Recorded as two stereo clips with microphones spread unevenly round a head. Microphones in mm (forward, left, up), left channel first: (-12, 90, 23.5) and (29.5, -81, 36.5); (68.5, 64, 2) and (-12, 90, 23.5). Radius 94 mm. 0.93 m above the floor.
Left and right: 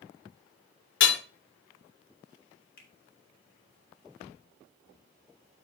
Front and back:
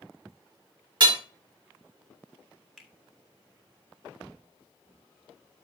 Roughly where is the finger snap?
Left.